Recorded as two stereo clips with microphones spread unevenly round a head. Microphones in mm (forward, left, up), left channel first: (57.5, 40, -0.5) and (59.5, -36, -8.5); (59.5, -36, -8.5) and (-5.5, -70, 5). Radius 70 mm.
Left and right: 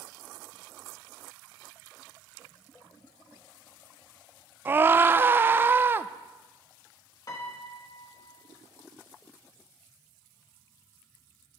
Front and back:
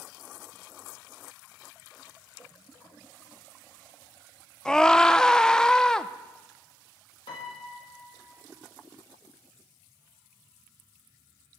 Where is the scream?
40° right, 0.6 m.